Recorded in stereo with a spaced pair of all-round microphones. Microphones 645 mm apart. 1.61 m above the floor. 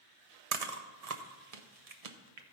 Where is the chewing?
65° right (ahead or behind), 0.9 m.